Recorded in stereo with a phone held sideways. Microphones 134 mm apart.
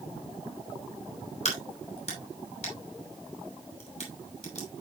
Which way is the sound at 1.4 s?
50° left (ahead or behind).